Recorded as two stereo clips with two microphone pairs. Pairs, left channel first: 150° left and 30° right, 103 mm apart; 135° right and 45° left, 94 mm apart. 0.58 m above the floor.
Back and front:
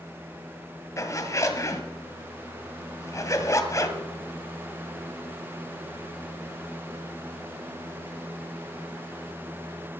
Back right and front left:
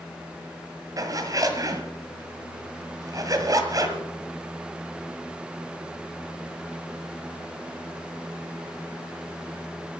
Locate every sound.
1.0 s a zipper: 95° left, 1.7 m